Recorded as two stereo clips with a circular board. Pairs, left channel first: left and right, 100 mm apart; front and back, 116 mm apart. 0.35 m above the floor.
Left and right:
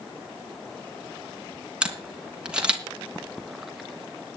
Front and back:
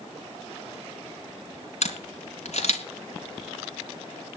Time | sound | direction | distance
1.8 | a camera shutter | 10° right | 3 m